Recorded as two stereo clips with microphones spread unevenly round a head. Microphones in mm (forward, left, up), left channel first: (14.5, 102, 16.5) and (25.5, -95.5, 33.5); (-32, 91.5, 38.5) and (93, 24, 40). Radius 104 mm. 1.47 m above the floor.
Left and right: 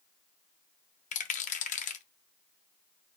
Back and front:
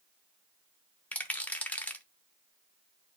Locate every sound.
1.1 s a rattle: 80° left, 0.5 m